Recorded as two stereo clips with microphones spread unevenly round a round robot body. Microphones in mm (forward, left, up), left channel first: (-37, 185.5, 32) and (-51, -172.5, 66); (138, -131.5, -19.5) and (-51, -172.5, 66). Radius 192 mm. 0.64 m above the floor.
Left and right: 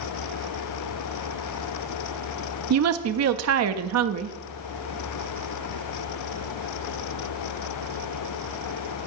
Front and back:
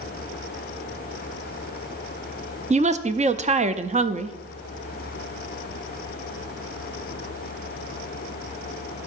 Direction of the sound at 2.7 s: 90° right.